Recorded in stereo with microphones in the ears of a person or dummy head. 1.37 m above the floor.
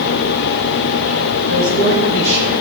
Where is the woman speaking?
70° right (ahead or behind), 3.5 m.